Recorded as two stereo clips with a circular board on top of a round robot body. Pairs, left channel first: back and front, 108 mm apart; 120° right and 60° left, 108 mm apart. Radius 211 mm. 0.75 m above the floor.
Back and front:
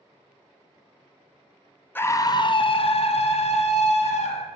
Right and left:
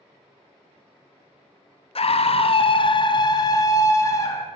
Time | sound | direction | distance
1.9 | a scream | 110° right | 0.6 m